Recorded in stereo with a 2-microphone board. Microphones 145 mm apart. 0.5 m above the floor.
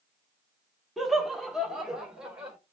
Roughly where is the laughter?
Centre.